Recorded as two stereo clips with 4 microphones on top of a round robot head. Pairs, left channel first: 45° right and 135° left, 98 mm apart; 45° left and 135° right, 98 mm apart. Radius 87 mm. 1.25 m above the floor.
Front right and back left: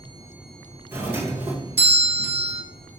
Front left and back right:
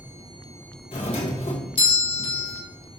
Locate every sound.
0.9 s a doorbell: 70° left, 1.9 m